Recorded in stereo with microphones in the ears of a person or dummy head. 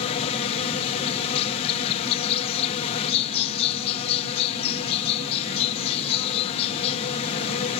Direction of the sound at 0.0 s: 30° left (ahead or behind).